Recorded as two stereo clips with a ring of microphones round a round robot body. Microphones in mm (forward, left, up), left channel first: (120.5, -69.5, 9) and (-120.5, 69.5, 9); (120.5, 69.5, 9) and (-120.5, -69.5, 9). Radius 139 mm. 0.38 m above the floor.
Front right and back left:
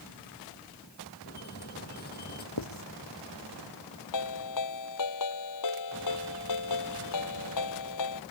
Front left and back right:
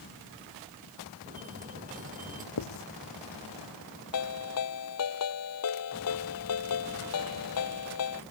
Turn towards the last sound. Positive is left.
turn(degrees=-10)